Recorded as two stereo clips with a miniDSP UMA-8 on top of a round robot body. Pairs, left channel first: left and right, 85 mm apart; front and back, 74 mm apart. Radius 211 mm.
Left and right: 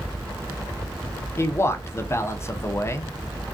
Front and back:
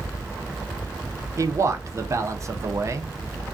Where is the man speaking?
145° left, 0.8 m.